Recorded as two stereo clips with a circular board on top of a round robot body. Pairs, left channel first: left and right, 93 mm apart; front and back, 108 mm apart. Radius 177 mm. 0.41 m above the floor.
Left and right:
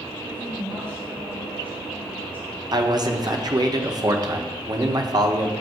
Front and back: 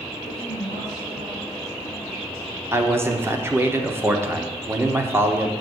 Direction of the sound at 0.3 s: 150° right.